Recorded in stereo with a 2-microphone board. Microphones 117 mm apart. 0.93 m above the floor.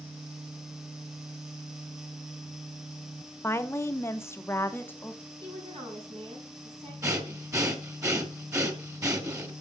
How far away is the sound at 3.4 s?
About 0.8 m.